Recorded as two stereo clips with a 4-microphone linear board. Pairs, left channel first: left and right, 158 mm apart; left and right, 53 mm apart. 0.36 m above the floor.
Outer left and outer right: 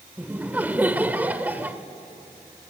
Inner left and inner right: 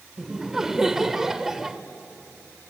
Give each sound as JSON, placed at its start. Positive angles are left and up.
{"t": 0.2, "sound": "laughter", "side_deg": -10, "distance_m": 0.9}